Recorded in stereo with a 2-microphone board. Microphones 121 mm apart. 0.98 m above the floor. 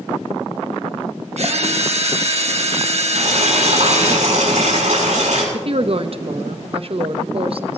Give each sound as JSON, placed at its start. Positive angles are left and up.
{"t": 1.4, "sound": "a drill", "side_deg": -60, "distance_m": 1.6}
{"t": 3.1, "sound": "boiling", "side_deg": -70, "distance_m": 7.0}
{"t": 5.5, "sound": "a woman speaking", "side_deg": -50, "distance_m": 0.9}